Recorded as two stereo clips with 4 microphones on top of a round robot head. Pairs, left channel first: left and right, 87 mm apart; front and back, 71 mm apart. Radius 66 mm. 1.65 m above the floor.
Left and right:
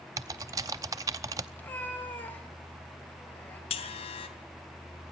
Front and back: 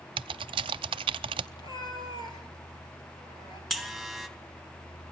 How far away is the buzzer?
About 2.5 m.